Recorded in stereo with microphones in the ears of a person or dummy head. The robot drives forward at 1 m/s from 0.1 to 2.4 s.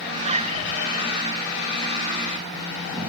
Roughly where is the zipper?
Right.